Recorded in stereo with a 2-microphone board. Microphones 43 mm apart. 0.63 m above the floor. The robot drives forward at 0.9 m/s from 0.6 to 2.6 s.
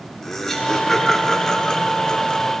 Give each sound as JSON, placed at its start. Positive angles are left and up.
{"t": 0.2, "sound": "laughter", "side_deg": 10, "distance_m": 2.0}